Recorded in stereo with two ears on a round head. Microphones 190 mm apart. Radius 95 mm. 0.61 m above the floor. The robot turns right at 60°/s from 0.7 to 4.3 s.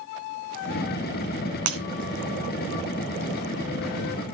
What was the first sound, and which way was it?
Breaking glass, 80° right.